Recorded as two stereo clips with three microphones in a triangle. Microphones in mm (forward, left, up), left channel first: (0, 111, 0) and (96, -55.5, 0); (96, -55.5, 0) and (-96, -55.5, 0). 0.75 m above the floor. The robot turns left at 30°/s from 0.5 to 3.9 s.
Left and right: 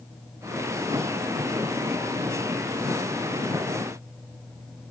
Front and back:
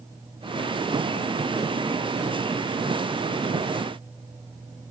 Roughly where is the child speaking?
I don't hear a child speaking.